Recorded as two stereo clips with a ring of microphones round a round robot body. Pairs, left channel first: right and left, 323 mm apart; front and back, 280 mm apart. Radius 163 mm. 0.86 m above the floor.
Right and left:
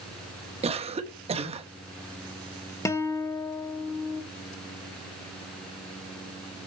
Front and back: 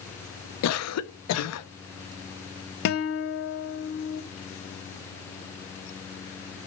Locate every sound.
0.6 s a cough: 20° left, 1.0 m
2.9 s a guitar: 15° right, 0.6 m